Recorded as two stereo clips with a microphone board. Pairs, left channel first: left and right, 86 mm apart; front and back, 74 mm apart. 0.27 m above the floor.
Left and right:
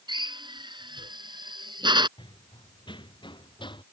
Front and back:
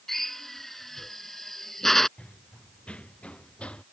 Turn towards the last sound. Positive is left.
turn(degrees=75)